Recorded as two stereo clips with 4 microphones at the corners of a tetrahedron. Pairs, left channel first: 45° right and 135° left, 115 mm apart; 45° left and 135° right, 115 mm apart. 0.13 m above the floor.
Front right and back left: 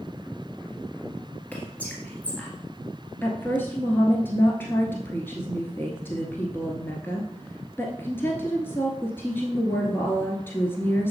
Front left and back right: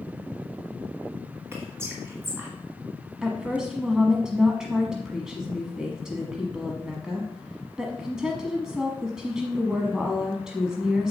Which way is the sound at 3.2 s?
60° right.